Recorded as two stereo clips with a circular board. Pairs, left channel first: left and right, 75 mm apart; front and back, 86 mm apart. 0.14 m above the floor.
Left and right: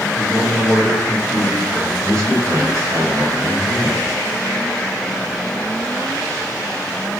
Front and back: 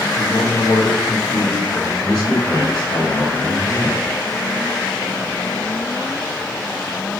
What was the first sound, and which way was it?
A man speaking, 30° right.